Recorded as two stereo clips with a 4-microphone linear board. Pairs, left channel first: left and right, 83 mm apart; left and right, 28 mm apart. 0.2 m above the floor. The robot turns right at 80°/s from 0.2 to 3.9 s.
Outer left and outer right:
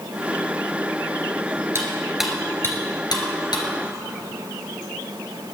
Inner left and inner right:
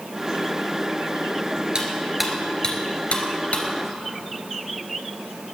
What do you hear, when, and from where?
1.8 s cutlery clinking: 35° right (ahead or behind), 2.5 m; by 3.6 s 60° left (ahead or behind), 2.5 m